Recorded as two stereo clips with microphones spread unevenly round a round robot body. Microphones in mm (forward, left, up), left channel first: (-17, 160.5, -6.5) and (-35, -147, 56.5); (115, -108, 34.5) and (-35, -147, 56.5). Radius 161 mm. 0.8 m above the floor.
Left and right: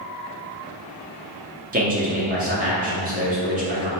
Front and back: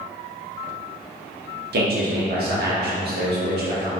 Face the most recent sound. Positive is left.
turn(degrees=-160)